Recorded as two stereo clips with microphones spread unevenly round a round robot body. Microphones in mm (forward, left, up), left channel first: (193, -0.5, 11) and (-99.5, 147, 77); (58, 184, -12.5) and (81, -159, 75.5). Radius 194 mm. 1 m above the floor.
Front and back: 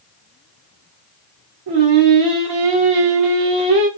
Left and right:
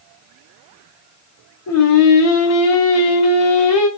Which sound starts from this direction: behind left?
Singing, at 1.7 s.